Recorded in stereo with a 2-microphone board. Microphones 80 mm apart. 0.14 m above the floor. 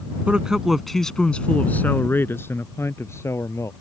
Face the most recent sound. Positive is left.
turn(degrees=35)  # may be behind; listen again after turning